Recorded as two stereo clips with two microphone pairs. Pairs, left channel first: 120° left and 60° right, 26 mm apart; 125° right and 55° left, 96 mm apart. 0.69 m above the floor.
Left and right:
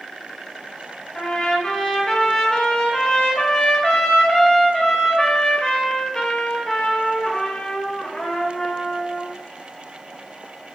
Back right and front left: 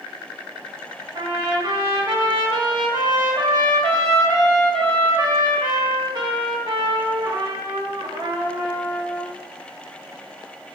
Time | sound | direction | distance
1.1 | a trumpet | 70° left | 0.8 m